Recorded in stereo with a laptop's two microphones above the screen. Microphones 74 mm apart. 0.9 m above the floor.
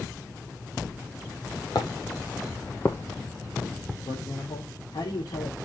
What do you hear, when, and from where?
1.8 s footsteps: 60° left (ahead or behind), 1.9 m; by 4.0 s centre (ahead or behind), 2.5 m
4.1 s a man speaking: 70° left (ahead or behind), 3 m